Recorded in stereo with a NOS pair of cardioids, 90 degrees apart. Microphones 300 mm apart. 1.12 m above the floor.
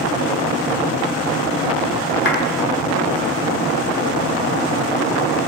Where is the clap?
35° left, 2.5 m.